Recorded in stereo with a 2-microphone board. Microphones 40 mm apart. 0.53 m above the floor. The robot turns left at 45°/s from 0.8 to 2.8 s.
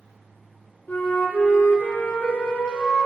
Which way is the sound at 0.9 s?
110° left.